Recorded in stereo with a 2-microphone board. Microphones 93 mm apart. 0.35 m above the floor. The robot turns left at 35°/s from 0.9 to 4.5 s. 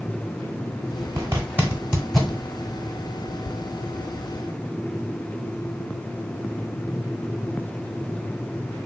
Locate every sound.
1.2 s a zipper: 30° right (ahead or behind), 0.9 m; by 2.4 s 5° left (ahead or behind), 0.9 m